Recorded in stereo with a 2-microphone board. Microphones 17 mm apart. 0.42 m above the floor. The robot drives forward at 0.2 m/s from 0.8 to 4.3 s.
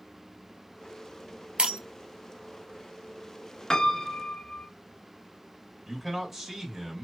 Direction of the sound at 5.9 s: 15° right (ahead or behind).